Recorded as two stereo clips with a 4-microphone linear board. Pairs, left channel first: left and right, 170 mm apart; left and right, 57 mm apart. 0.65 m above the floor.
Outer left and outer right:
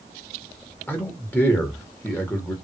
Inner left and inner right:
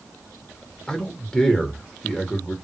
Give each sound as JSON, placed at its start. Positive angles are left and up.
{"t": 0.9, "sound": "a man speaking", "side_deg": 10, "distance_m": 1.1}